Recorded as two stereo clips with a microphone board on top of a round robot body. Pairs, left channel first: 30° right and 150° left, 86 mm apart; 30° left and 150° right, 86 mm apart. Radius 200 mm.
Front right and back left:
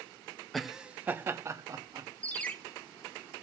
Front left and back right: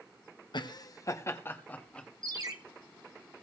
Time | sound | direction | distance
0.5 | laughter | 60° left | 1.5 m
2.2 | a ringtone | 105° right | 1.8 m